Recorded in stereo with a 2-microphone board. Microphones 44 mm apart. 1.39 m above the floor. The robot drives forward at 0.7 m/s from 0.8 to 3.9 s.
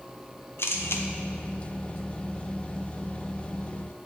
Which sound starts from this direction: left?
A camera shutter, at 0.6 s.